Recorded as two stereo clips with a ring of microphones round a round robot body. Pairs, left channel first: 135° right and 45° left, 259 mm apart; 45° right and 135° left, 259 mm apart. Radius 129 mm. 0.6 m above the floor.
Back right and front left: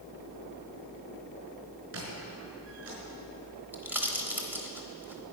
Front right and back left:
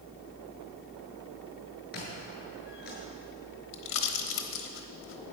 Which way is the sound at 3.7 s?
35° right.